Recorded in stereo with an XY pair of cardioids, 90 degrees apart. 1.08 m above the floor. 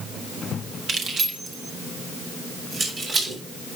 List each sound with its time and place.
0.9 s keys jangling: 55° right, 2 m; by 3.8 s 50° right, 5.5 m